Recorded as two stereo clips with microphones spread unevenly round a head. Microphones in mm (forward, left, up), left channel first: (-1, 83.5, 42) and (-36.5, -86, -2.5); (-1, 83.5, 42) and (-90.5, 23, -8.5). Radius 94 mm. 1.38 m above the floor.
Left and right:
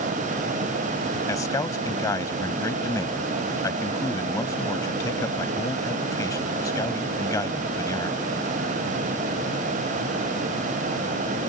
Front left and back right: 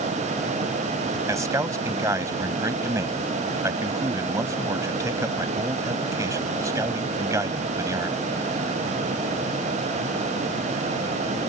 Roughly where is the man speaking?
Behind left.